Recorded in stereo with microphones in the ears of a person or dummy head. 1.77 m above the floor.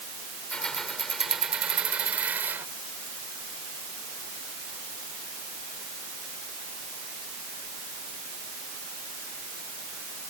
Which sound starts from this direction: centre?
Keys jangling, at 0.5 s.